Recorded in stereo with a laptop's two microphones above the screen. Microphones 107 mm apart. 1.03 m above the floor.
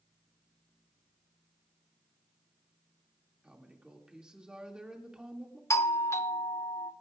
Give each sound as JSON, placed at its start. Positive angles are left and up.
{"t": 3.4, "sound": "a woman speaking", "side_deg": -5, "distance_m": 2.0}
{"t": 5.7, "sound": "a doorbell", "side_deg": 25, "distance_m": 0.5}